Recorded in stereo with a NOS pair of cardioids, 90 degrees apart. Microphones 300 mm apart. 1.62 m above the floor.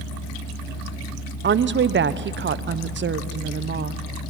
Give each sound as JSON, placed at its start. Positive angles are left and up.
{"t": 1.4, "sound": "a woman speaking", "azimuth_deg": -40, "distance_m": 1.0}